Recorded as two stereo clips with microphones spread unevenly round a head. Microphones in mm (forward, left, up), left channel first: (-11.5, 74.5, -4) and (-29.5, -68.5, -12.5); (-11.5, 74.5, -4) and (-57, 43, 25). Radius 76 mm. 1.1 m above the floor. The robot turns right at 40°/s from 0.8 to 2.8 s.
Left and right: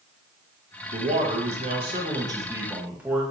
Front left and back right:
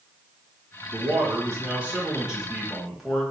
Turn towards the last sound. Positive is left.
turn(degrees=-25)